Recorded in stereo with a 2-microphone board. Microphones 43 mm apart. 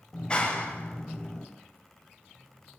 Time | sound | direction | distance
0.1 | a clap | 20° left (ahead or behind) | 6.5 m